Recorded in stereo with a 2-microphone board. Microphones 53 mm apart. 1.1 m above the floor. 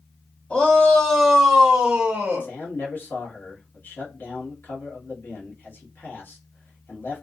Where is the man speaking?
40° left (ahead or behind), 1.1 m.